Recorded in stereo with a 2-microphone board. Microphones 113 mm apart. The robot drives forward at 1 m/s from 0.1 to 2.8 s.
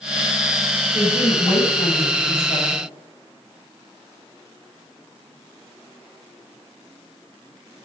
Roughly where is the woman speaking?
Left.